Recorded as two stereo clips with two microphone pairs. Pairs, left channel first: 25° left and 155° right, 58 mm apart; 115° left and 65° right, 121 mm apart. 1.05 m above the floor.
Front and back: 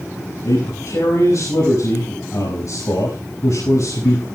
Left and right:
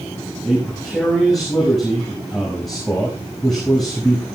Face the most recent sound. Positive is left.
turn(degrees=25)